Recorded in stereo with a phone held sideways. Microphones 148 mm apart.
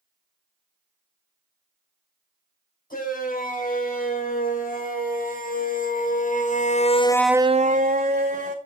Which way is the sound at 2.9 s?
75° left (ahead or behind).